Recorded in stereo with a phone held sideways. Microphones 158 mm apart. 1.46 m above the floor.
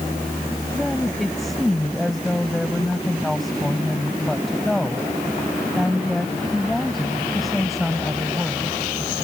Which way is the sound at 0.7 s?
Centre (ahead or behind).